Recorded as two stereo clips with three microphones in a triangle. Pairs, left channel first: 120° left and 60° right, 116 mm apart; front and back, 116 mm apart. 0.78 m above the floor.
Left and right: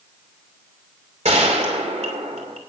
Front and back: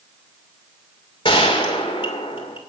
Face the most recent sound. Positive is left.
turn(degrees=-40)